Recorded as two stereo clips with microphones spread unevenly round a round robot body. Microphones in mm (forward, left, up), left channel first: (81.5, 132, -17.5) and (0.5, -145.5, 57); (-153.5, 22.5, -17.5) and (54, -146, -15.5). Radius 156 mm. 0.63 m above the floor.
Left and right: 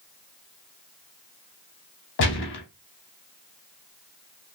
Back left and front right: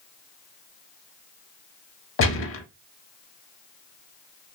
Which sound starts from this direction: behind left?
A gunshot, at 2.2 s.